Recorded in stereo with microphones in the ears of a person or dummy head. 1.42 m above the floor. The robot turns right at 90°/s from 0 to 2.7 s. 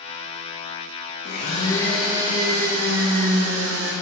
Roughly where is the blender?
Behind left.